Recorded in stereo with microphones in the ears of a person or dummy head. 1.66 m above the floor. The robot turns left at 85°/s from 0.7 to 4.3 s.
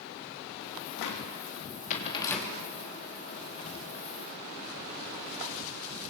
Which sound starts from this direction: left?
A cupboard door, at 1.0 s.